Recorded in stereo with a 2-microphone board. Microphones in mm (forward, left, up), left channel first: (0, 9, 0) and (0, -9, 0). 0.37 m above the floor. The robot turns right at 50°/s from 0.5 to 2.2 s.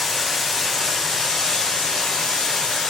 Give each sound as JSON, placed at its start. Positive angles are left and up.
{"t": 0.0, "sound": "running water", "azimuth_deg": 10, "distance_m": 1.7}